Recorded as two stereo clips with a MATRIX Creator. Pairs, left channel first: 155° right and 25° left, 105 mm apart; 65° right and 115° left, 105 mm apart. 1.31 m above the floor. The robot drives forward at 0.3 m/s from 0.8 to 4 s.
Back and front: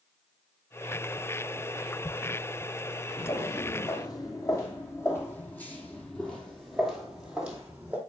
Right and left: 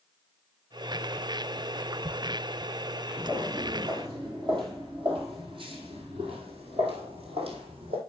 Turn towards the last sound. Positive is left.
turn(degrees=95)